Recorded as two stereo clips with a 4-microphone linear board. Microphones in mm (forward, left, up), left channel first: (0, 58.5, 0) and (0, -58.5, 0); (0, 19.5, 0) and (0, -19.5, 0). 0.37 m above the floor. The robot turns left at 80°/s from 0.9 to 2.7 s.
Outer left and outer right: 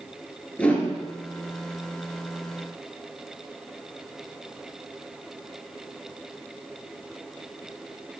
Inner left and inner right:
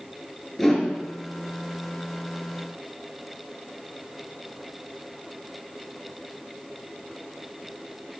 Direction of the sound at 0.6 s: 10° left (ahead or behind).